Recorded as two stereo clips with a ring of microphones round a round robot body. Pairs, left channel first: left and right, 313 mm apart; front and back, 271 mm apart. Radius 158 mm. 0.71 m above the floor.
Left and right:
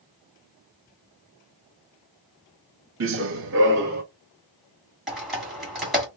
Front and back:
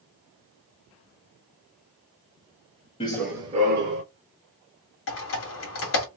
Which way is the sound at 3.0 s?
65° right.